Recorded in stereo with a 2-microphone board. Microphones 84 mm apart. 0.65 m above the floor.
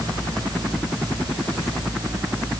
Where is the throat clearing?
I don't hear throat clearing.